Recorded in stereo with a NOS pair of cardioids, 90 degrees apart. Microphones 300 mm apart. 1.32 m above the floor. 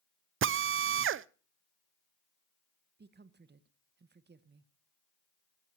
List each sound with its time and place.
0.4 s a drill: 45° right, 0.5 m
3.0 s a woman speaking: 35° right, 1.3 m